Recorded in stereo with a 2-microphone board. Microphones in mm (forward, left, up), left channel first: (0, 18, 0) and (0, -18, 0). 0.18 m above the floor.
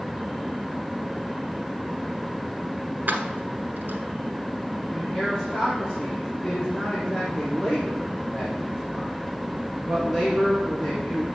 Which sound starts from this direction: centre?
A man speaking, at 4.9 s.